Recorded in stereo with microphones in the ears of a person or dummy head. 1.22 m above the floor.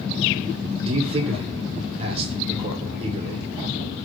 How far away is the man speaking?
About 0.8 m.